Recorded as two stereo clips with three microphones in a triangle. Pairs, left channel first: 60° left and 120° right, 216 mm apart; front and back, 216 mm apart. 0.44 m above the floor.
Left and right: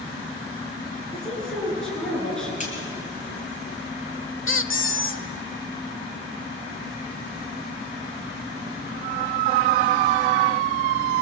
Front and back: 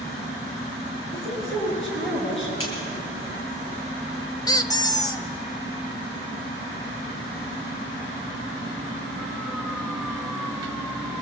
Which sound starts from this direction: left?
A squeak, at 4.5 s.